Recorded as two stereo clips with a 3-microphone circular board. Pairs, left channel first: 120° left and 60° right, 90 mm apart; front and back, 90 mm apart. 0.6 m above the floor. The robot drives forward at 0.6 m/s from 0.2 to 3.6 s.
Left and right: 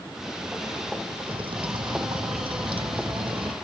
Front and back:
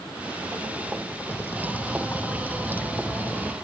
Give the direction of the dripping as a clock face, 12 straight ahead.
2 o'clock.